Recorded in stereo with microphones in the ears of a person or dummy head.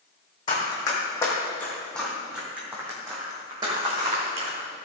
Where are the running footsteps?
25° left (ahead or behind), 4 m; by 4.6 s 35° right (ahead or behind), 5 m.